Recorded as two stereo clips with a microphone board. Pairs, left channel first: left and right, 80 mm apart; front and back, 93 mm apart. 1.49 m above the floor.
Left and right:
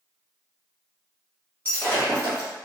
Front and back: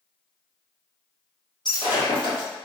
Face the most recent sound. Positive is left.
turn(degrees=25)